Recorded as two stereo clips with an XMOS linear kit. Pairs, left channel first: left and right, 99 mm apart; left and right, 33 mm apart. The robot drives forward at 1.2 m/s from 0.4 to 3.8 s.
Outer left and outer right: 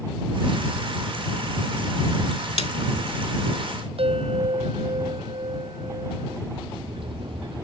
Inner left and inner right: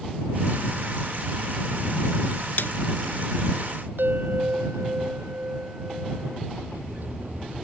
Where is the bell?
70° right (ahead or behind).